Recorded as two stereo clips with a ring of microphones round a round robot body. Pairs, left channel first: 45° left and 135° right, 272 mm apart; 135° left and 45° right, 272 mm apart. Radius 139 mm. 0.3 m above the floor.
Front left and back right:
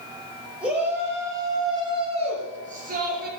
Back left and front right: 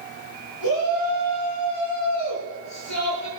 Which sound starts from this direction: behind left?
A shout, at 0.6 s.